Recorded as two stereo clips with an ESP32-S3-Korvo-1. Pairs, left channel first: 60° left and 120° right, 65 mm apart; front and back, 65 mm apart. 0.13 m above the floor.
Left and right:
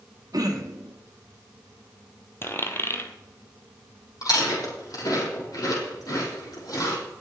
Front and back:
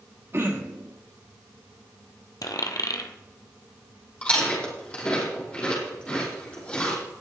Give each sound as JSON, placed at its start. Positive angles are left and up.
{"t": 0.3, "sound": "throat clearing", "azimuth_deg": -135, "distance_m": 1.8}
{"t": 2.4, "sound": "a dropped coin", "azimuth_deg": 10, "distance_m": 1.4}
{"t": 4.2, "sound": "chewing", "azimuth_deg": 70, "distance_m": 5.5}